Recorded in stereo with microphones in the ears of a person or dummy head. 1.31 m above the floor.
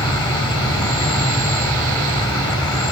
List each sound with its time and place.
0.0 s an insect: 20° left (ahead or behind), 4 m